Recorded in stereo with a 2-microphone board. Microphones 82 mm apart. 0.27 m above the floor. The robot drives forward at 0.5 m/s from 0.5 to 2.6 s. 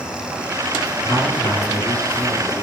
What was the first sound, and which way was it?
A man speaking, 70° left (ahead or behind).